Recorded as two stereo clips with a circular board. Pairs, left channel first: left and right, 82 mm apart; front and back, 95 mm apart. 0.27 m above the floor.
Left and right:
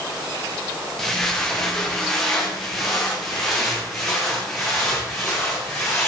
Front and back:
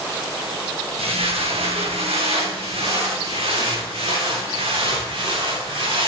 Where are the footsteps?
Straight behind, 3 m.